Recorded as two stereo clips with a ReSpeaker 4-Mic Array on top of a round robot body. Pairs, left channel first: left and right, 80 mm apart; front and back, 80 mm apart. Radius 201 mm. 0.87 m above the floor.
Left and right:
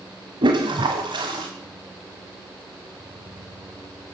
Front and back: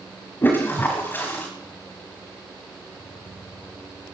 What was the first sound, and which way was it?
A toilet flushing, 65° right.